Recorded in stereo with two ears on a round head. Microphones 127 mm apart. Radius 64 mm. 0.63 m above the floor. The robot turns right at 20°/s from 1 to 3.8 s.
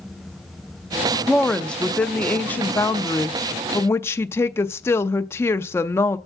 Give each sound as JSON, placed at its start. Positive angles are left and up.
{"t": 1.3, "sound": "a woman speaking", "side_deg": 5, "distance_m": 0.5}